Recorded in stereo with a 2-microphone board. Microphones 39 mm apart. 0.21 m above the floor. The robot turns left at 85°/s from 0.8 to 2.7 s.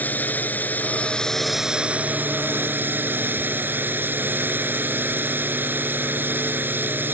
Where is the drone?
55° left; by 7.2 s 105° right.